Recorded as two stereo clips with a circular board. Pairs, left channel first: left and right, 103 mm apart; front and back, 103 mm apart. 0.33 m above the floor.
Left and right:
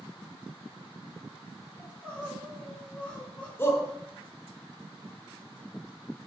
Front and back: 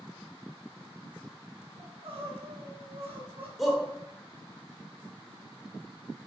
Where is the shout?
95° left, 1.2 m.